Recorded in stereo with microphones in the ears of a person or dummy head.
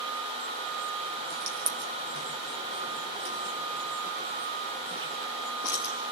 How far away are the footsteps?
About 3 m.